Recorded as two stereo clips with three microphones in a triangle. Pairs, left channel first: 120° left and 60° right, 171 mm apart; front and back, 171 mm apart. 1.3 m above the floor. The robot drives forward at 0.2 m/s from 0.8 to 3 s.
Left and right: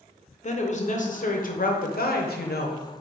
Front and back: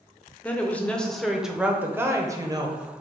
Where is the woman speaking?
80° left, 0.6 m; by 2.8 s 115° left, 0.7 m.